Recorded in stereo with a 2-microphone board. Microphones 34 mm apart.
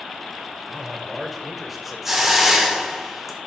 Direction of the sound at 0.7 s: 5° right (ahead or behind).